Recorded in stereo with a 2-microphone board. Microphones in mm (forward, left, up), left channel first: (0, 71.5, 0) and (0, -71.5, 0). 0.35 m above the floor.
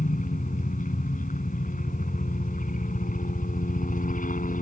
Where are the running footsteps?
No running footsteps in this recording.